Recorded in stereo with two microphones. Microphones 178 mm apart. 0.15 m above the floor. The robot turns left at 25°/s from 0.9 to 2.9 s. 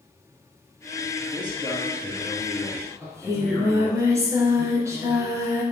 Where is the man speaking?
145° right, 2 m; by 4.0 s 175° left, 2 m.